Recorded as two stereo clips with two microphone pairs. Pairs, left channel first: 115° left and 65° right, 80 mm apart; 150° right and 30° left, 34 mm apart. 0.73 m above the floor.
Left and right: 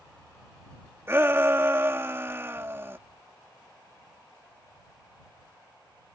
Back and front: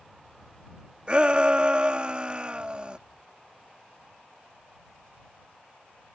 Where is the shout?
15° right.